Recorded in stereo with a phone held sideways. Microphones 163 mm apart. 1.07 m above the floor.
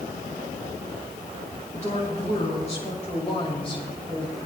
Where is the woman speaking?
45° left (ahead or behind), 6 m; by 4.3 s 30° left (ahead or behind), 5.5 m.